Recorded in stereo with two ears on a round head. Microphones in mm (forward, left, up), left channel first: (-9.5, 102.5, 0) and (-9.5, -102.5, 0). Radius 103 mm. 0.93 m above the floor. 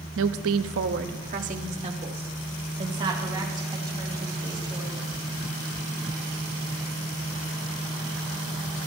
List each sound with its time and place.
0.2 s a woman speaking: 60° right (ahead or behind), 0.8 m; by 5.1 s 20° right (ahead or behind), 6 m